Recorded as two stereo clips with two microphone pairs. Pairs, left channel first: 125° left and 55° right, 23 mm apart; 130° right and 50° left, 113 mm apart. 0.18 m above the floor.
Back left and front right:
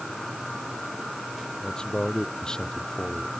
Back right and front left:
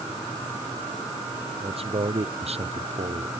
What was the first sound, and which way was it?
A man speaking, 80° left.